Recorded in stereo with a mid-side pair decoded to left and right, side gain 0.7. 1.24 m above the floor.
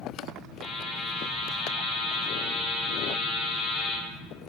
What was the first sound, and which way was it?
A buzzer, 35° left.